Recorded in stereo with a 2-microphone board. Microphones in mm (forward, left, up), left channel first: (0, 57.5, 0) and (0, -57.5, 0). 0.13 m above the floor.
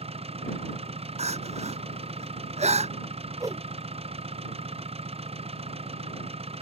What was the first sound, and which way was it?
An engine running, 60° right (ahead or behind).